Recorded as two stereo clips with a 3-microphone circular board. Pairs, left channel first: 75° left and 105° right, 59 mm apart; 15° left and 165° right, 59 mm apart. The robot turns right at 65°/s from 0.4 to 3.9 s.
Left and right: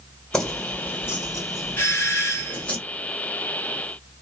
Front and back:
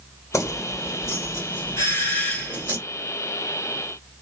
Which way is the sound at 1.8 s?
30° left.